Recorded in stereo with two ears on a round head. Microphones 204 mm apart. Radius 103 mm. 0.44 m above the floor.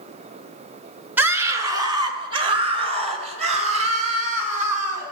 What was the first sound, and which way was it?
A scream, 10° right (ahead or behind).